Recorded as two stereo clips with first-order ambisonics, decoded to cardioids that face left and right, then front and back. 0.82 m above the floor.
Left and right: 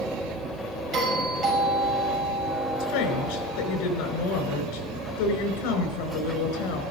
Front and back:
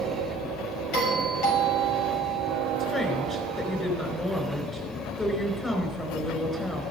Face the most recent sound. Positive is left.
turn(degrees=80)